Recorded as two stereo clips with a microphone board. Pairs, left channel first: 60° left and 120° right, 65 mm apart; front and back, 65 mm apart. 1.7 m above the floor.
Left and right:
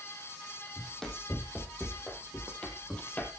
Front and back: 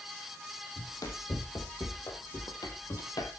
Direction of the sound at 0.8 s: 20° right.